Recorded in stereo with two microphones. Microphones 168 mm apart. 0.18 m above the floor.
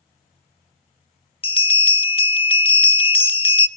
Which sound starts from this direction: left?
A bell, at 1.4 s.